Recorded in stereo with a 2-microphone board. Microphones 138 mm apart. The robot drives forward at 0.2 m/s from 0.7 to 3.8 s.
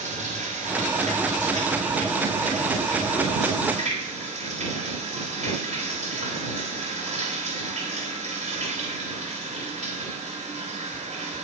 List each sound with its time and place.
0.0 s running water: 70° right (ahead or behind), 3 m; by 11.4 s 60° right (ahead or behind), 3.5 m